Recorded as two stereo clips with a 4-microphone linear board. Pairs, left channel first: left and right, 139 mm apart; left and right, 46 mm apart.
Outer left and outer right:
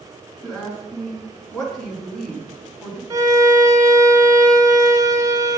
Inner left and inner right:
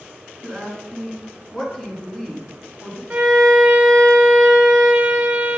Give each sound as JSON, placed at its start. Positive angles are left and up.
{"t": 0.4, "sound": "a woman speaking", "side_deg": 5, "distance_m": 3.0}
{"t": 3.1, "sound": "a violin", "side_deg": -25, "distance_m": 1.8}